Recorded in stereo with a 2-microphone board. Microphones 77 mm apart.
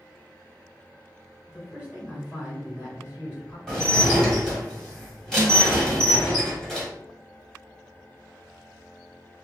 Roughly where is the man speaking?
Centre.